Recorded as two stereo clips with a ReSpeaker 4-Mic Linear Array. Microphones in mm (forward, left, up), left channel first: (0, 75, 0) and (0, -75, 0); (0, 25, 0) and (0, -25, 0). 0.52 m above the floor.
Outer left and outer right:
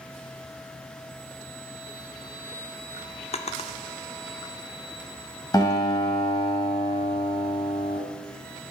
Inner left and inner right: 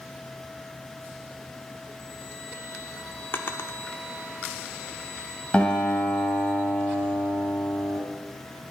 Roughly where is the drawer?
Left.